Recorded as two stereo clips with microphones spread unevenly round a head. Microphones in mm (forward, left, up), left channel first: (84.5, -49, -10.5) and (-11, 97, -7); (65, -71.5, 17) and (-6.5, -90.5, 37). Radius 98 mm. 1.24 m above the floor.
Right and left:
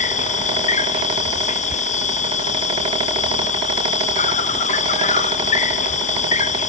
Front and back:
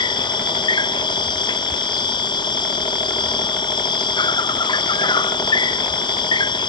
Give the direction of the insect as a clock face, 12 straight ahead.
12 o'clock.